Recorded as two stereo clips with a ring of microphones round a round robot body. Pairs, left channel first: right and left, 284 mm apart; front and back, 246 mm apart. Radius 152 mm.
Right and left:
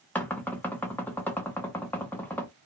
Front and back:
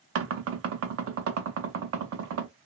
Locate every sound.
0.1 s knocking: 175° right, 0.5 m